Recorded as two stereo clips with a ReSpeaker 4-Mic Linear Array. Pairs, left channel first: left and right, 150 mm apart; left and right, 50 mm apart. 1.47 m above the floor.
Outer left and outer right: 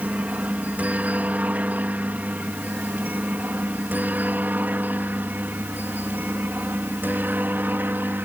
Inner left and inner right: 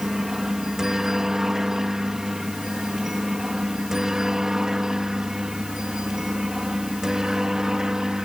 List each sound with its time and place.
0.0 s a helicopter: 10° right (ahead or behind); by 8.2 s 15° right (ahead or behind)